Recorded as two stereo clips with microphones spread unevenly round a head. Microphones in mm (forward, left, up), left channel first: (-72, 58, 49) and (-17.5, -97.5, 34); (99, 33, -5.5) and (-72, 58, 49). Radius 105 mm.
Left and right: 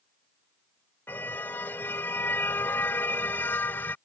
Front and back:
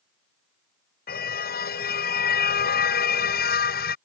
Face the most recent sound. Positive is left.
turn(degrees=30)